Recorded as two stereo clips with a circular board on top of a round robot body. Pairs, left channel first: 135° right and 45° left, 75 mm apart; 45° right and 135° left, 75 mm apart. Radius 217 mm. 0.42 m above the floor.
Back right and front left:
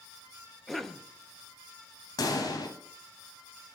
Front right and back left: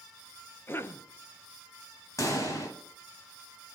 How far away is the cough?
About 0.7 m.